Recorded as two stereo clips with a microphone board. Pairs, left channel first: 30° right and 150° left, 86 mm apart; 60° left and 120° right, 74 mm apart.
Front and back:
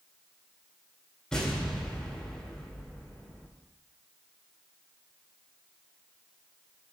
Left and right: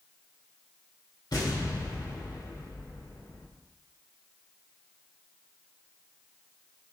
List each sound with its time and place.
1.3 s an explosion: 50° left, 2.5 m